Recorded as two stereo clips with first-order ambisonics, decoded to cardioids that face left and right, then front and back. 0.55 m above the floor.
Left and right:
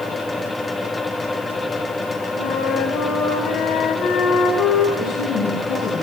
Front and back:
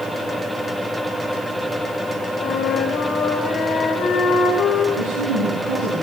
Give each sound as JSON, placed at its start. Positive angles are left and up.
{"t": 2.4, "sound": "a flute", "azimuth_deg": 60, "distance_m": 2.0}
{"t": 5.0, "sound": "a woman speaking", "azimuth_deg": 140, "distance_m": 7.5}